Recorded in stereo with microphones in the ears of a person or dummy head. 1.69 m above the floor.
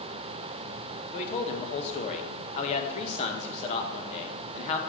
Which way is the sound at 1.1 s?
40° left (ahead or behind).